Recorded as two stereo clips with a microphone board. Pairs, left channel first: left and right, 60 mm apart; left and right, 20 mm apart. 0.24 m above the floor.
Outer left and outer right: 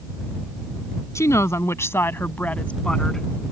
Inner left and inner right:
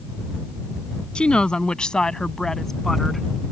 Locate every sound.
1.1 s a woman speaking: 55° left (ahead or behind); by 3.3 s 5° left (ahead or behind)